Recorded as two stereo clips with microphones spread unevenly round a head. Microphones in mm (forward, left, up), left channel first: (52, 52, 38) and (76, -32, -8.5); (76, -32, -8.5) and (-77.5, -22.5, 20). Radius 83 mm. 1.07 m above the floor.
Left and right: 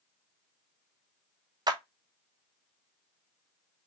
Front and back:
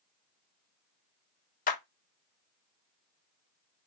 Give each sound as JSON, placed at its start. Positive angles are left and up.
{"t": 1.7, "sound": "a clap", "azimuth_deg": -40, "distance_m": 0.9}